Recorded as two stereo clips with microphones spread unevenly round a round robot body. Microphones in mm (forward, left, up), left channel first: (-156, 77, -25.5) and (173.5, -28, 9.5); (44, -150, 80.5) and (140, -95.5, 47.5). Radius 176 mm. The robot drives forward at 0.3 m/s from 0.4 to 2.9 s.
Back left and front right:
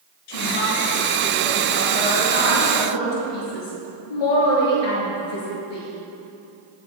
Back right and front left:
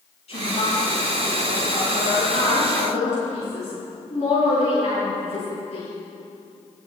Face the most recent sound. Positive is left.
turn(degrees=160)